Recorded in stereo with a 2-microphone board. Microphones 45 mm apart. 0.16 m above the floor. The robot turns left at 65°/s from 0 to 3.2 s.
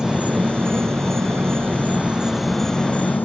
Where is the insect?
20° right; by 3.2 s 135° left.